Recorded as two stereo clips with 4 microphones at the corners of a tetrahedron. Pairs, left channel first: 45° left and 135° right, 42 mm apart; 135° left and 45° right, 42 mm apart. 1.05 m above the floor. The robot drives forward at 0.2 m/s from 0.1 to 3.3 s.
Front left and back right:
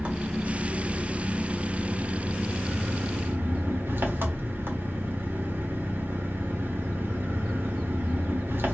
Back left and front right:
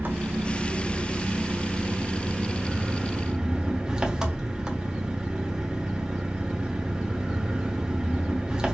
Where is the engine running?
80° right, 1.1 m; by 8.8 s 115° right, 1.2 m.